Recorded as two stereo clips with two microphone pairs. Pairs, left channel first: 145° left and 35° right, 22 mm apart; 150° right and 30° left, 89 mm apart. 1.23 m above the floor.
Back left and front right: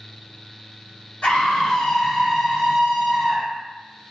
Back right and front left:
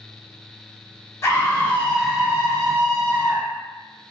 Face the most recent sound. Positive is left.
turn(degrees=5)